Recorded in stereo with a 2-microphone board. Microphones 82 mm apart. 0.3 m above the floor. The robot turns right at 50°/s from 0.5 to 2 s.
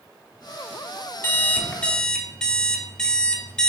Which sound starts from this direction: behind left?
An alarm clock, at 1.2 s.